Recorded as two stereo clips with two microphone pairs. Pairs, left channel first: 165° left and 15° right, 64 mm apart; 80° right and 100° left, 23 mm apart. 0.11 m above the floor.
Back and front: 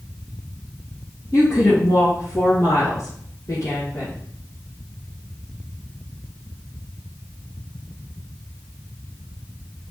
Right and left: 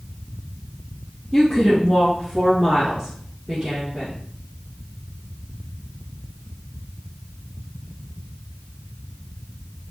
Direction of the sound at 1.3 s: 170° right.